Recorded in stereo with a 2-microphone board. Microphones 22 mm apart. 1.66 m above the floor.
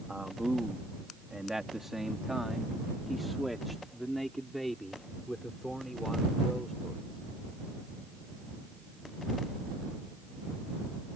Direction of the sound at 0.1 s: 45° right (ahead or behind).